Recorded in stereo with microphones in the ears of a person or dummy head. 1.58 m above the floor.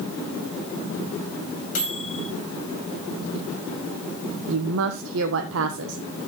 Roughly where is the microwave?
Left.